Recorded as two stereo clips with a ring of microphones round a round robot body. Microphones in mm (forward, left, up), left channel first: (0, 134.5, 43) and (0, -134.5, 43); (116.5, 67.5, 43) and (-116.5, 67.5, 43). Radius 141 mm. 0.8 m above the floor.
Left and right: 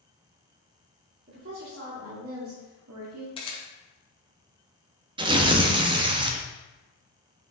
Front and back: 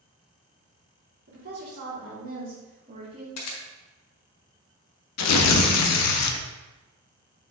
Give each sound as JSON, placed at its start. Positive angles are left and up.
{"t": 1.3, "sound": "a woman speaking", "azimuth_deg": -135, "distance_m": 2.5}
{"t": 3.4, "sound": "a camera shutter", "azimuth_deg": 20, "distance_m": 1.2}
{"t": 5.2, "sound": "tearing paper", "azimuth_deg": -15, "distance_m": 0.7}